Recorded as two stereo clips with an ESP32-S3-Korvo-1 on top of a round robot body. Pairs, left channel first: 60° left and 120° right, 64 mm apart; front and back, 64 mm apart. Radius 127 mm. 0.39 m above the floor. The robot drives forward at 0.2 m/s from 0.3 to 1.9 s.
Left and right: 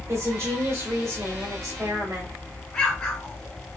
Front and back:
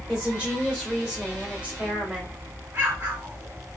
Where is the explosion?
140° left, 1.8 m.